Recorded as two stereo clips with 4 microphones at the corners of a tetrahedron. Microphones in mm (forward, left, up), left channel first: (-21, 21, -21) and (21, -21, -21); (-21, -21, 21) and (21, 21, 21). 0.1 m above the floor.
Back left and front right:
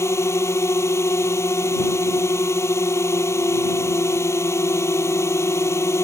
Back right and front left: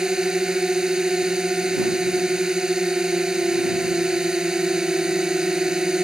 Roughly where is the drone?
Behind left.